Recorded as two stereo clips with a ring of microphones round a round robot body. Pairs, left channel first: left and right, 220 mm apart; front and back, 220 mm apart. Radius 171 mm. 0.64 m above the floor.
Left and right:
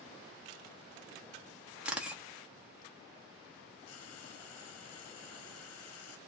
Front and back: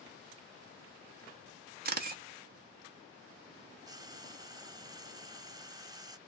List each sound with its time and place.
1.9 s a camera shutter: 175° right, 0.9 m
3.9 s frying: 105° left, 0.9 m